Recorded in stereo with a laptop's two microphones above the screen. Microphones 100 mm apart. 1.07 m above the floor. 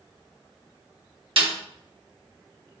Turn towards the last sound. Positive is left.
turn(degrees=-65)  # may be behind; listen again after turning